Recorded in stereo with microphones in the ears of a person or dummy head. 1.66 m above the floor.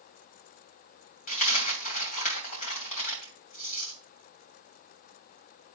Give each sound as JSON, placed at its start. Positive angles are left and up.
{"t": 1.3, "sound": "a dropped coin", "side_deg": 40, "distance_m": 2.5}